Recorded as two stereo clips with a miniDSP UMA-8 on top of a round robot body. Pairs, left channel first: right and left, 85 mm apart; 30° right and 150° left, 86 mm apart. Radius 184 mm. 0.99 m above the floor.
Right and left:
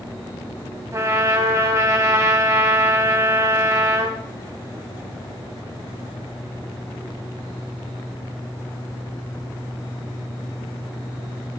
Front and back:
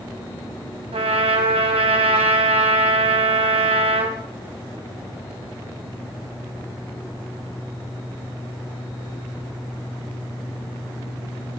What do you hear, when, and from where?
0.9 s a trumpet: 150° left, 2.5 m